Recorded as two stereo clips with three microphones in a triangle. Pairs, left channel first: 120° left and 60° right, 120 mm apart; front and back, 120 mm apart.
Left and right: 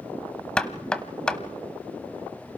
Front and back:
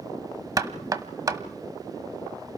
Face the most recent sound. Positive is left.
turn(degrees=-165)